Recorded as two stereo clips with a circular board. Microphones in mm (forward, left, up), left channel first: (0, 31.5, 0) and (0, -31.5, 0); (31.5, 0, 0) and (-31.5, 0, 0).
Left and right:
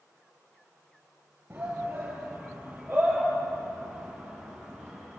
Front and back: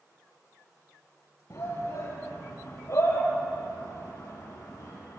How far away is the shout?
About 5 m.